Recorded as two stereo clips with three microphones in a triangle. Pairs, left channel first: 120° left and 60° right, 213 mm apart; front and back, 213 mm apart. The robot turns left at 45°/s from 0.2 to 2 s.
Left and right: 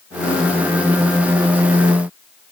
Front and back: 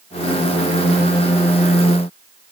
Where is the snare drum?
I don't hear a snare drum.